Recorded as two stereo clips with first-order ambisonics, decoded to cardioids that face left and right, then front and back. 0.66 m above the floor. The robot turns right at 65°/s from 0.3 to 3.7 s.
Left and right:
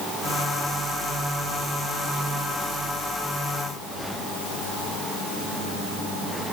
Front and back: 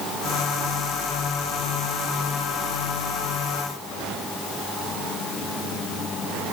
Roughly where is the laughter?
I don't hear laughter.